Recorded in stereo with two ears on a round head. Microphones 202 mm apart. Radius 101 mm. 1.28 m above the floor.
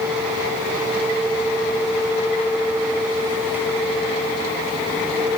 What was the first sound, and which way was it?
Only background noise.